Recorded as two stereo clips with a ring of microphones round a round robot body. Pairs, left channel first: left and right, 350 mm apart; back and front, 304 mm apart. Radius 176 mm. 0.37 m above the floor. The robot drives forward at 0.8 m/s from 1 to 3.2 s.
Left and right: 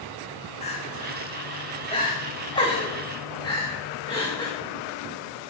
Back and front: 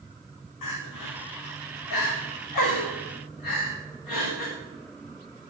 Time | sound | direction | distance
0.6 | crying | 165° left | 4.5 m